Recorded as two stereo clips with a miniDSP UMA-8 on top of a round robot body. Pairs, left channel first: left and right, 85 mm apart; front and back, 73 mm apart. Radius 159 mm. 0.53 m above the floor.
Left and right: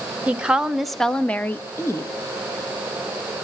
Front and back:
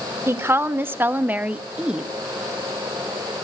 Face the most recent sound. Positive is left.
turn(degrees=105)